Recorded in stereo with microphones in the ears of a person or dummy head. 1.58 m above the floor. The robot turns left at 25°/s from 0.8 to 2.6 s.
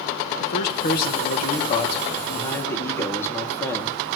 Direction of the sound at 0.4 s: 65° left.